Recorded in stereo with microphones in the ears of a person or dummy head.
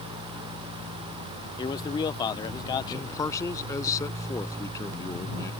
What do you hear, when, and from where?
1.6 s a man speaking: 25° left (ahead or behind)
2.9 s a man speaking: 25° left (ahead or behind)